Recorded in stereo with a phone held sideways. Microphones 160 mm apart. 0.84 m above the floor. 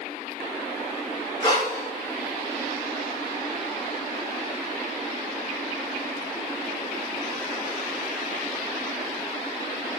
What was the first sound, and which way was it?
Breathing, 25° left (ahead or behind).